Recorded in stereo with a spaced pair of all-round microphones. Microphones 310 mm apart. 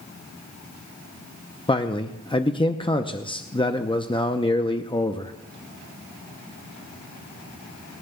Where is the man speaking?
15° left (ahead or behind), 0.6 m.